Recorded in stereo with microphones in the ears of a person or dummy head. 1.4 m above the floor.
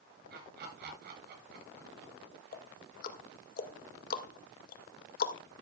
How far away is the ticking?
About 1.9 m.